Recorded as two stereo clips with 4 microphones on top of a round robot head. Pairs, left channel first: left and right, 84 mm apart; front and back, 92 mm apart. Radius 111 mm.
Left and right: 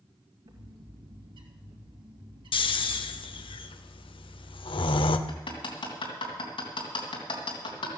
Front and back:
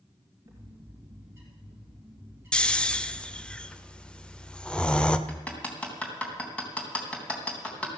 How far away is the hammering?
About 3 m.